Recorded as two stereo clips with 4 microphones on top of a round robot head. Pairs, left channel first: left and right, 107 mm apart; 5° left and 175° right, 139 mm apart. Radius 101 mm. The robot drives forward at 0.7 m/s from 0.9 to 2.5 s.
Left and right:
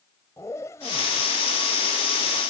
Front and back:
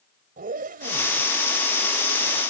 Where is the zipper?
165° left; by 2.4 s 170° left.